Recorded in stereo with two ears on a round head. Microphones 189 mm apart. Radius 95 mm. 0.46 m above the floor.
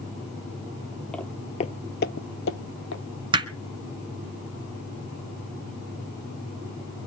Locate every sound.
1.1 s footsteps: 5° left (ahead or behind), 0.7 m; by 3.0 s 65° left (ahead or behind), 1.2 m
3.3 s hammering: 25° right (ahead or behind), 1.1 m